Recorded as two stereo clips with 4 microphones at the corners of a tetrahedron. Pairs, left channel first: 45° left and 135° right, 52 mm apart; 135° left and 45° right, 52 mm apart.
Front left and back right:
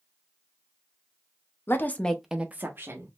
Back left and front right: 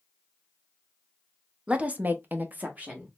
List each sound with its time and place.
1.7 s a woman speaking: 15° left, 0.8 m; by 3.1 s 110° right, 1.2 m